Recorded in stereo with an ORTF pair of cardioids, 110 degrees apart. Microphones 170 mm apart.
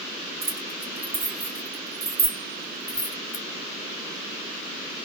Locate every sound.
0.4 s keys jangling: 40° right, 2 m; by 3.5 s 30° left, 0.8 m